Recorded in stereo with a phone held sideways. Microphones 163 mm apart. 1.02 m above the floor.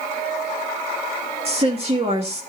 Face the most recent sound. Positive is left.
turn(degrees=-40)  # may be behind; listen again after turning